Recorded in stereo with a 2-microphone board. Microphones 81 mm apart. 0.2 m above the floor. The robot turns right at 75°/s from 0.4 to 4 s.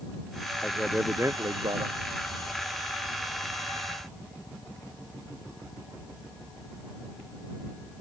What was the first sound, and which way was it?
A man speaking, 165° left.